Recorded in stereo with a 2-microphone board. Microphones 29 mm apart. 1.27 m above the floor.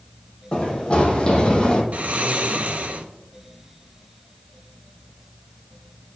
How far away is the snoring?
About 0.5 m.